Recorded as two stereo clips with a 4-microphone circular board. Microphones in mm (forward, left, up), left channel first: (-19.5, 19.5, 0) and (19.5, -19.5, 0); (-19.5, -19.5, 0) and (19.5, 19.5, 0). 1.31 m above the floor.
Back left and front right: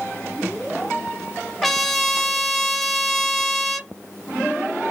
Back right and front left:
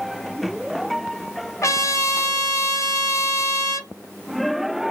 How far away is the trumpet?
About 0.7 m.